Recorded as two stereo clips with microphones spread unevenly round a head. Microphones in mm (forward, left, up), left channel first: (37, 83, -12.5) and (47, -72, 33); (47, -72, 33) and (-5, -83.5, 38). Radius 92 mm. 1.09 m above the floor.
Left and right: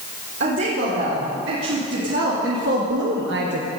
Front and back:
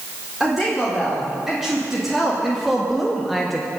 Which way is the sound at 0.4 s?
85° right.